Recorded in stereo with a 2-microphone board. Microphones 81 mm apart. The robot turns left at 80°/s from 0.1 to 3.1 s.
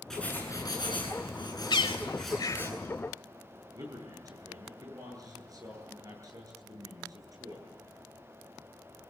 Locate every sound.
0.1 s writing: 175° left, 10 m; by 2.7 s 35° right, 10 m
1.7 s a bird: 65° left (ahead or behind), 0.8 m; by 2.7 s 30° left (ahead or behind), 0.8 m
3.7 s a man speaking: 45° right (ahead or behind), 9.5 m